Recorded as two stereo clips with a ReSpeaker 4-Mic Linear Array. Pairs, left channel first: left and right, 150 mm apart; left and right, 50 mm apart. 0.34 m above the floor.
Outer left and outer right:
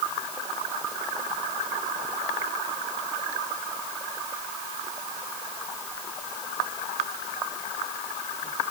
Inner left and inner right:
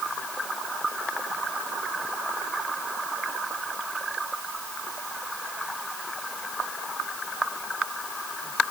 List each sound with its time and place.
Only background noise.